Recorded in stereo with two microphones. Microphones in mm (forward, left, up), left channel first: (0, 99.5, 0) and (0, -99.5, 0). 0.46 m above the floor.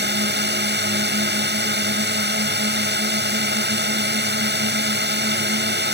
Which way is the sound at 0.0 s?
60° right (ahead or behind).